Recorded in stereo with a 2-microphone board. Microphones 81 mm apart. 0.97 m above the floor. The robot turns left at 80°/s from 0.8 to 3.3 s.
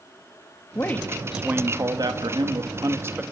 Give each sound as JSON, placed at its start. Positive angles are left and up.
{"t": 0.8, "sound": "a man speaking", "azimuth_deg": 35, "distance_m": 1.7}